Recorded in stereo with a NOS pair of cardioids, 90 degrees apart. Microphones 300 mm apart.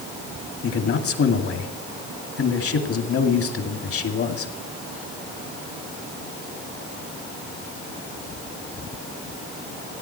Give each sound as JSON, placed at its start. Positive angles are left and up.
{"t": 0.6, "sound": "a man speaking", "azimuth_deg": 50, "distance_m": 2.0}